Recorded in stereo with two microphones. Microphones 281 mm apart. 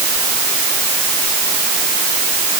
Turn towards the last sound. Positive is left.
No sound to turn to.